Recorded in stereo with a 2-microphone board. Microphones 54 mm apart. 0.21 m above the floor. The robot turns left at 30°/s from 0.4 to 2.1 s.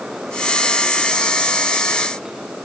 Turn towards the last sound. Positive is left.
No sound to turn to.